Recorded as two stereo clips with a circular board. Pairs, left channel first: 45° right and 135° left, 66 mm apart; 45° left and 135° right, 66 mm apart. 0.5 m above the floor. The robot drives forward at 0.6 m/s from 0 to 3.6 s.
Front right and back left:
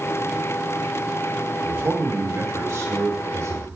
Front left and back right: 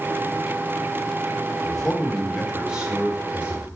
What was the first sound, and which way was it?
A man speaking, 120° left.